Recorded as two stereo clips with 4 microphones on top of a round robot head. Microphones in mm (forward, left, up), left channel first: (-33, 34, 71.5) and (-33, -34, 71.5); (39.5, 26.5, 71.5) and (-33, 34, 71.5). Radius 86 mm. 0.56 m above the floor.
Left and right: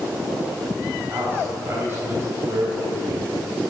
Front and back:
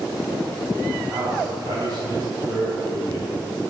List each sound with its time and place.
1.1 s a man speaking: 145° right, 3.5 m